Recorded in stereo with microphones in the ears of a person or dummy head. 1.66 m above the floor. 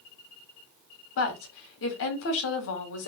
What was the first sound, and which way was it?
A woman speaking, 70° left (ahead or behind).